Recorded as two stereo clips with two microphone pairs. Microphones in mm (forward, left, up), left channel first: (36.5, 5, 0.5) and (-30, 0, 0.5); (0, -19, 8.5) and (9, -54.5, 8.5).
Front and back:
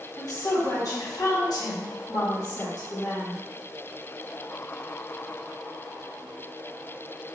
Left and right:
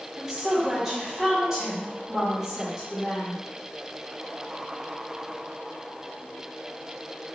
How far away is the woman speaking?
About 1.5 m.